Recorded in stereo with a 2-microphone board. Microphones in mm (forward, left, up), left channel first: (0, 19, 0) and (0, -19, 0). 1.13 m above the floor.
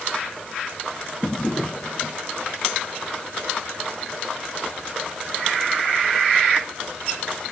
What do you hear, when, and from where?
1.2 s a drawer: 25° left (ahead or behind)